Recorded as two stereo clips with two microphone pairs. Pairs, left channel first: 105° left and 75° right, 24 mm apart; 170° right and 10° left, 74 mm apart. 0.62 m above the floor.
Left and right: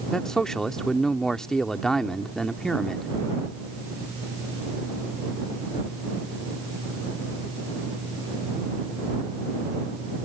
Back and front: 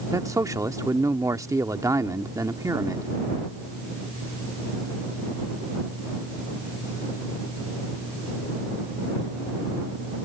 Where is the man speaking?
40° left.